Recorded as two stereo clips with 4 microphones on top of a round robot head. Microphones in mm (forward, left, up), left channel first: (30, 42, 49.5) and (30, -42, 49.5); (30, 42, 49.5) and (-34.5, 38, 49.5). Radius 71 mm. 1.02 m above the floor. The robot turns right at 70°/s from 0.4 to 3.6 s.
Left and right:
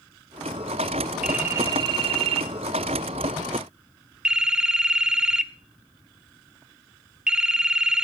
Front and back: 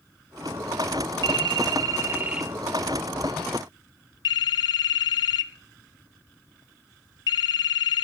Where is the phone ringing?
175° right, 1.2 m; by 8.0 s 10° right, 1.2 m.